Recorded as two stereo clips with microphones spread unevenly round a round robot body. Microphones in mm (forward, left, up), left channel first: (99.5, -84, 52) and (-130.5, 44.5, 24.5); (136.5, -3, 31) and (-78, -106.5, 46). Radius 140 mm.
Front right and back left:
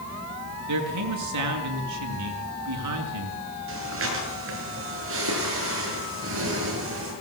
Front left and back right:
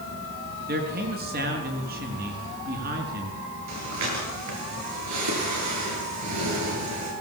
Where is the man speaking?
150° left, 5 m.